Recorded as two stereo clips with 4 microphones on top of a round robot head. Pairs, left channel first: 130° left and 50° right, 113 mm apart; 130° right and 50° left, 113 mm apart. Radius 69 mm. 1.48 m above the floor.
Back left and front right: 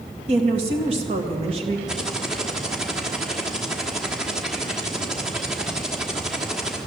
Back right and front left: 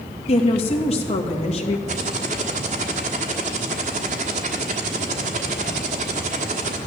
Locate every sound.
0.3 s a woman speaking: 95° right, 2.0 m
1.9 s typing on a keyboard: 35° left, 1.4 m